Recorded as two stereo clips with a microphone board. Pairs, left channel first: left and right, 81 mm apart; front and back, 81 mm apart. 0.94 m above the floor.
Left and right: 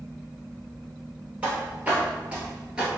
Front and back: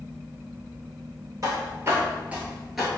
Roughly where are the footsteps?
Behind right.